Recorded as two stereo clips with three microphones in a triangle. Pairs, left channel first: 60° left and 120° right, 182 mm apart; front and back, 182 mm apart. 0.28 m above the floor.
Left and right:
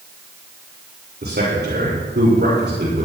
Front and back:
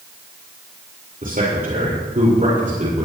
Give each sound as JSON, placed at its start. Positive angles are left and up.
{"t": 1.2, "sound": "a man speaking", "azimuth_deg": -140, "distance_m": 7.5}